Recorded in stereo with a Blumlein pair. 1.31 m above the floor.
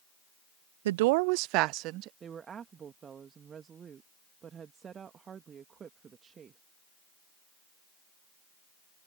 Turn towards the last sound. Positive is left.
turn(degrees=-20)